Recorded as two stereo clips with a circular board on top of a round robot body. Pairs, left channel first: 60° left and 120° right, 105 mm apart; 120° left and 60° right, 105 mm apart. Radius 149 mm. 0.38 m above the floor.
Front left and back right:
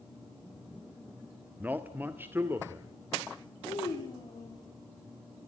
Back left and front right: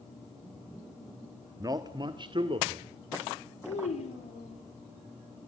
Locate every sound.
1.6 s a man speaking: 60° right, 1.4 m; by 2.9 s 55° right, 2 m
3.6 s a child speaking: 115° left, 7 m